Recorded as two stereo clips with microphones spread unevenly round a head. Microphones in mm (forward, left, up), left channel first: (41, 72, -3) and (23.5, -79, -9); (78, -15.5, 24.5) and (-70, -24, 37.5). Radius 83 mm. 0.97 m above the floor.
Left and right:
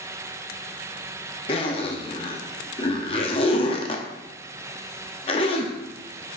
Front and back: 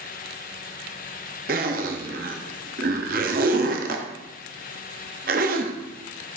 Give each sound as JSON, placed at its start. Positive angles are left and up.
{"t": 1.5, "sound": "a zipper", "azimuth_deg": 145, "distance_m": 0.7}